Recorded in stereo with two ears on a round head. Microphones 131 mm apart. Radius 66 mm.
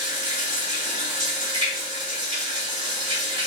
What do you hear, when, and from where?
0.0 s running water: 45° right (ahead or behind), 2 m